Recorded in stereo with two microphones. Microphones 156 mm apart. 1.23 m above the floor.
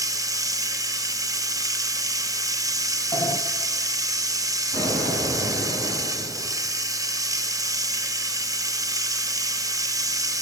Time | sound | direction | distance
0.0 | running water | 20° right (ahead or behind) | 0.7 m
3.1 | a sliding door | 25° left (ahead or behind) | 0.8 m
4.7 | an explosion | 60° right (ahead or behind) | 7 m